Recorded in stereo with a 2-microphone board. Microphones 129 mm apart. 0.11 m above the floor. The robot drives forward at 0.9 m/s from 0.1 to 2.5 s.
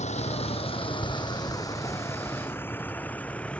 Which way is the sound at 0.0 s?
60° left (ahead or behind).